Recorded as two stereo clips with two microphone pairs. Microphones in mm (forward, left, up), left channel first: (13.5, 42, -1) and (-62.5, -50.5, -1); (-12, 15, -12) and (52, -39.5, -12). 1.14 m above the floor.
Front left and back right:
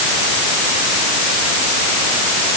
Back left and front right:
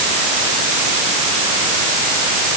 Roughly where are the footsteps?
No footsteps in this recording.